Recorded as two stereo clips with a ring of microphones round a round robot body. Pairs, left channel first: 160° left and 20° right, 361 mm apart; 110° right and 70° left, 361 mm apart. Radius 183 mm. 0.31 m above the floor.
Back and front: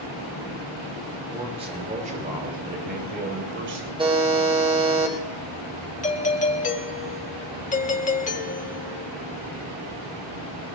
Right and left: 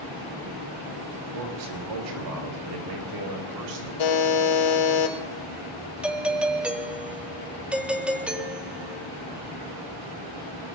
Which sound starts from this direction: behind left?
A doorbell, at 6.0 s.